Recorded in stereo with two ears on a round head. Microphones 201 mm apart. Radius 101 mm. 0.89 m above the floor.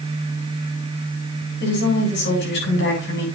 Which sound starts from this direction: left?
A woman speaking, at 1.6 s.